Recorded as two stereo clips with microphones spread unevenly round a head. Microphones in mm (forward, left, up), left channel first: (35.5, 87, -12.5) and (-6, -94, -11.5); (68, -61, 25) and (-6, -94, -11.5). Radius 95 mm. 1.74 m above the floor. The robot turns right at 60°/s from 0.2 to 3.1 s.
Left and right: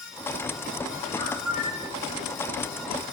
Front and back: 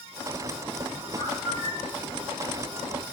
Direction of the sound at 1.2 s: 5° left.